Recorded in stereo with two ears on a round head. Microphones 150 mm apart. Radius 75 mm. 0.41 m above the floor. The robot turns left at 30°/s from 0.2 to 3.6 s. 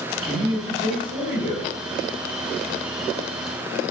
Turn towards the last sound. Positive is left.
turn(degrees=-155)